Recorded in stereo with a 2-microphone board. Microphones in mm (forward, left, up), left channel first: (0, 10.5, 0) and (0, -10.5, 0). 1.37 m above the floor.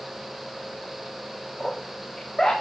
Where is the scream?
30° left (ahead or behind), 4 m.